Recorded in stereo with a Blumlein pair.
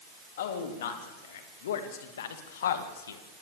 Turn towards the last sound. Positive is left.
turn(degrees=65)